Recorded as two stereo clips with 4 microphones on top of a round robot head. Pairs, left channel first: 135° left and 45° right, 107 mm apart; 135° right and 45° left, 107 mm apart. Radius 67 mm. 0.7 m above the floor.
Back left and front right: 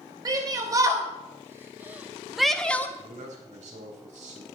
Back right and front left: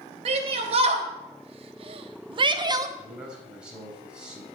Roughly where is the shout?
Ahead.